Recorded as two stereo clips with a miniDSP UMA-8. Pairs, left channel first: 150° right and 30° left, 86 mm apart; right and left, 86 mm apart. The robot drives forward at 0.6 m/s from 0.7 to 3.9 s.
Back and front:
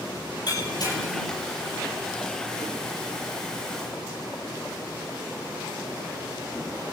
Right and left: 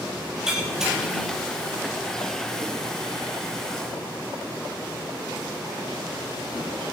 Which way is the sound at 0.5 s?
170° left.